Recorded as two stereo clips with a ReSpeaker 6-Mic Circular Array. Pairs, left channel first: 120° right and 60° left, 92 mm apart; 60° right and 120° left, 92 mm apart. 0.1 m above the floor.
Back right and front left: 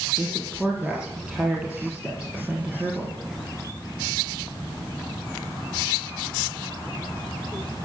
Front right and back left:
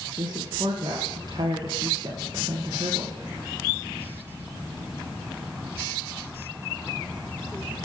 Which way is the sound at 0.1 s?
140° left.